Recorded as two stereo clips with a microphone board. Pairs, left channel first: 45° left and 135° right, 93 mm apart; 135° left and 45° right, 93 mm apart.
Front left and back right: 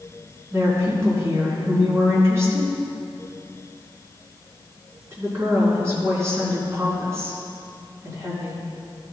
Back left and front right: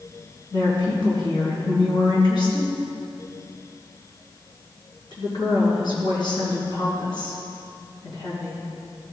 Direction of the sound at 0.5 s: 170° left.